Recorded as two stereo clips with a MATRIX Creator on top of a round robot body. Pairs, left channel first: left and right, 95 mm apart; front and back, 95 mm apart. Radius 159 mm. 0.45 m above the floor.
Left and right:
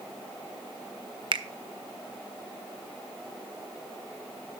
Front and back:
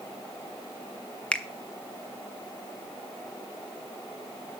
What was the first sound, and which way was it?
A finger snap, 80° right.